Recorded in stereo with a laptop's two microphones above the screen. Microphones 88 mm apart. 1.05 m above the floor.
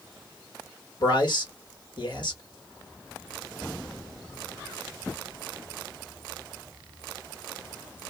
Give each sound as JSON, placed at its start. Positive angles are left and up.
{"t": 1.0, "sound": "a man speaking", "side_deg": 60, "distance_m": 1.8}